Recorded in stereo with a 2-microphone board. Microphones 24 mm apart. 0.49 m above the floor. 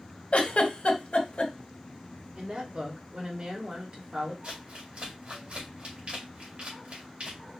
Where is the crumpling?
65° right (ahead or behind), 2.5 m.